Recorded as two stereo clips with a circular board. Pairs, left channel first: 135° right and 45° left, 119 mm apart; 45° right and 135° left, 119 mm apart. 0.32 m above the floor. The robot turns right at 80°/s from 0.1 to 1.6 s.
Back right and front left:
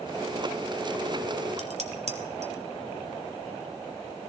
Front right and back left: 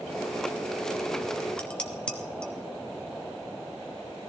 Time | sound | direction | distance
1.6 | dishes clattering | 35° left | 1.7 m